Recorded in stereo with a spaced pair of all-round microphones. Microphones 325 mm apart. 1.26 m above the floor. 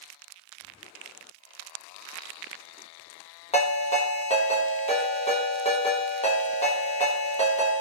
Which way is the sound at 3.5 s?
20° left (ahead or behind).